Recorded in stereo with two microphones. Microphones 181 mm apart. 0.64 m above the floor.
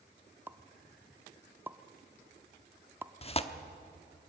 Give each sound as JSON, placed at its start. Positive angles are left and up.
{"t": 0.5, "sound": "a pop", "side_deg": -10, "distance_m": 0.6}
{"t": 3.2, "sound": "tearing paper", "side_deg": 35, "distance_m": 0.9}